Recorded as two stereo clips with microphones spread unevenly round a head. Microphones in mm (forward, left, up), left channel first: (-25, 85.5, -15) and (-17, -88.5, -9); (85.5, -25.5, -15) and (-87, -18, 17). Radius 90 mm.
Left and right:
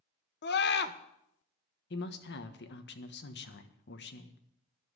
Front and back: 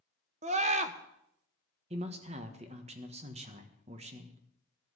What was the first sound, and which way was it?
A scream, 120° left.